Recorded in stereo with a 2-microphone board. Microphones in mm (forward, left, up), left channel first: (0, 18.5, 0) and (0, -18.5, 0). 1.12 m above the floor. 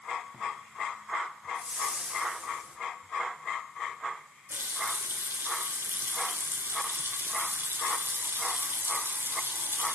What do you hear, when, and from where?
1.6 s a whoosh: 35° right (ahead or behind), 2.5 m
4.5 s a running tap: 70° right (ahead or behind), 2 m